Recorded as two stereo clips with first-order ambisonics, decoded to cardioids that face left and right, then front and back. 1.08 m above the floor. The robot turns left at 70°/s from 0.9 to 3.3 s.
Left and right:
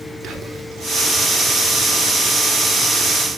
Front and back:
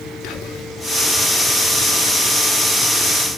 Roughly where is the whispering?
Ahead right.